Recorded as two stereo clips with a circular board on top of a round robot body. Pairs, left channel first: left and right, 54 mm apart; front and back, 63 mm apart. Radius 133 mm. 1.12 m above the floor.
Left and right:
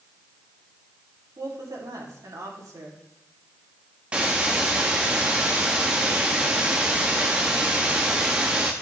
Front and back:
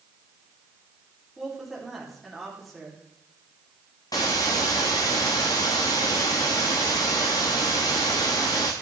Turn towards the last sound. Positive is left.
turn(degrees=-25)